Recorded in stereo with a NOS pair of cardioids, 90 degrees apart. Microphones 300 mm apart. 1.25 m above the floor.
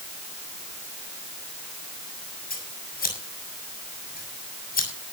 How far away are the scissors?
About 7 m.